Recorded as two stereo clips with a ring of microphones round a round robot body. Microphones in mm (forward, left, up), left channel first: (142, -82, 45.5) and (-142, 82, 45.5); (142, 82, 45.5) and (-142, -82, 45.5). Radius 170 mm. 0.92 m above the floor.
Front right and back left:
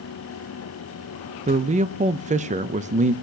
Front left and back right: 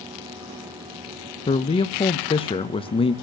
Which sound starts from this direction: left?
A man speaking, at 1.5 s.